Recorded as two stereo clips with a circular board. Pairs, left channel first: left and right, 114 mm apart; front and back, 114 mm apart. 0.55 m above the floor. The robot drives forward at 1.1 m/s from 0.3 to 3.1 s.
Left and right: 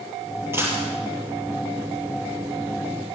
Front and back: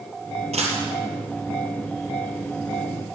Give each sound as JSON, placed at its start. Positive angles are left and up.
{"t": 0.5, "sound": "a dropped coin", "azimuth_deg": -160, "distance_m": 4.0}